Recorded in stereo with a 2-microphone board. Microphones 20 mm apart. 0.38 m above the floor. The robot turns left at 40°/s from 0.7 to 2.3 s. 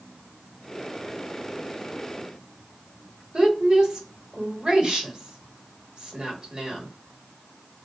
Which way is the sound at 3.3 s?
45° right (ahead or behind).